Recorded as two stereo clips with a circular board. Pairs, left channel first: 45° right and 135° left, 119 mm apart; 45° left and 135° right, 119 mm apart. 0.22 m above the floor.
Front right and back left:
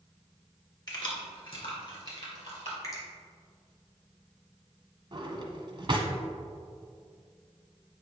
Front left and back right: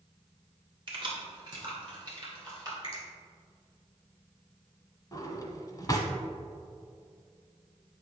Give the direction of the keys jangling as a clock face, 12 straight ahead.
3 o'clock.